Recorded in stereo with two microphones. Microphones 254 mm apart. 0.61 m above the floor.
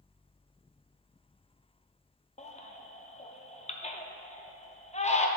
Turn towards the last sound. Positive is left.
turn(degrees=30)  # may be behind; listen again after turning